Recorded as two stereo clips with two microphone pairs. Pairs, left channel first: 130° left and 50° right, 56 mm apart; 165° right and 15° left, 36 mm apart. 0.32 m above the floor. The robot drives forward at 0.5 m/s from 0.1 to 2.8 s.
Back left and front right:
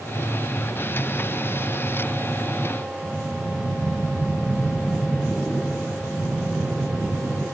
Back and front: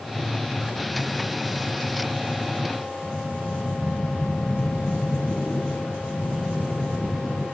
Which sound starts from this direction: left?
Breathing, at 3.0 s.